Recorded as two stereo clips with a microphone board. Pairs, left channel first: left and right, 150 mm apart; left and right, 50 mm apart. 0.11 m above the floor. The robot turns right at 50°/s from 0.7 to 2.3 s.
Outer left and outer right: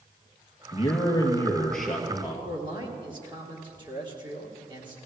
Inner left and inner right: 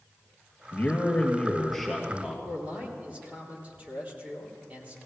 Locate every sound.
0.7 s a man speaking: 125° left, 2.5 m; by 2.4 s 155° right, 2.5 m
2.5 s a man speaking: 30° right (ahead or behind), 3.5 m